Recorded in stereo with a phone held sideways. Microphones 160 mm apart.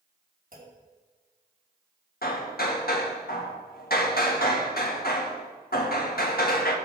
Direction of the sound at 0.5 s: 60° right (ahead or behind).